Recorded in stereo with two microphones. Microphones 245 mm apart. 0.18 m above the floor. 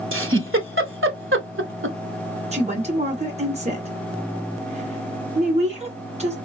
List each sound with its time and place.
0.1 s a giggle: 55° right (ahead or behind), 0.7 m
2.5 s a woman speaking: 25° right (ahead or behind), 2 m